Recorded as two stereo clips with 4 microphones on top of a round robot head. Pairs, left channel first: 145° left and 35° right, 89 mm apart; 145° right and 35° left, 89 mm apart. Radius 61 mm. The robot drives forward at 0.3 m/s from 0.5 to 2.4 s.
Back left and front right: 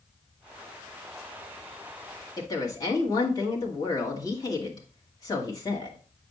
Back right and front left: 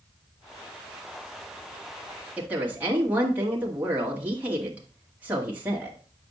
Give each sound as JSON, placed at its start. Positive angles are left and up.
{"t": 2.4, "sound": "a woman speaking", "azimuth_deg": 105, "distance_m": 1.7}